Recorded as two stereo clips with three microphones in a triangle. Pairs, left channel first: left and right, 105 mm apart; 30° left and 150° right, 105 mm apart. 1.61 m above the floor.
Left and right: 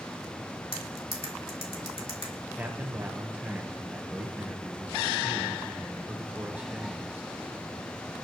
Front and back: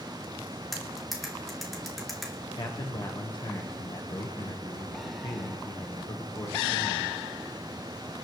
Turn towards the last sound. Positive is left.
turn(degrees=-15)